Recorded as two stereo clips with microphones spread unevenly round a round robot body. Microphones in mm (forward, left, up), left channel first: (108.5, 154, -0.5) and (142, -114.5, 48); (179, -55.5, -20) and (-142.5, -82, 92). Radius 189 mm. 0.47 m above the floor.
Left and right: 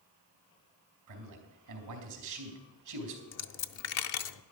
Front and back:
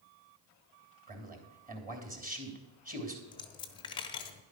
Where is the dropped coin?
75° left, 0.7 m.